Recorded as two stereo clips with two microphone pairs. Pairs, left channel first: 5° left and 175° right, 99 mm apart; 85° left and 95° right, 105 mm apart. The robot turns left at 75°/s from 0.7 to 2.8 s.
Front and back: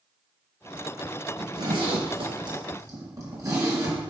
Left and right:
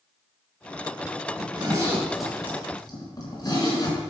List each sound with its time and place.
1.4 s a zipper: 120° right, 3 m; by 4.0 s 130° left, 3 m